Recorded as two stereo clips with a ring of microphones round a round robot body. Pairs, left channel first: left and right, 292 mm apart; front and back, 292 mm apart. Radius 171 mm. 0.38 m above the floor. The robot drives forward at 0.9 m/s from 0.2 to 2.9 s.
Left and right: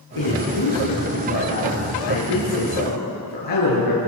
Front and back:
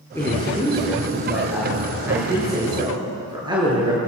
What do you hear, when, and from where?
0.1 s a man speaking: 80° left, 6.5 m; by 4.0 s 105° left, 6.5 m